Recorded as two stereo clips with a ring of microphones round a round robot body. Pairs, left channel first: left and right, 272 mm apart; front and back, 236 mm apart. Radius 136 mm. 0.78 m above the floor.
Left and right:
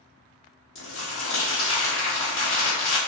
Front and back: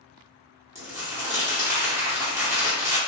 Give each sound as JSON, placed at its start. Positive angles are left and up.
{"t": 0.8, "sound": "crumpling", "azimuth_deg": 105, "distance_m": 1.4}